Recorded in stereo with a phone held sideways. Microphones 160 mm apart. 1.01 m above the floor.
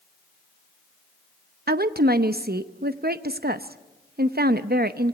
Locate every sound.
1.7 s a woman speaking: 75° right (ahead or behind), 0.8 m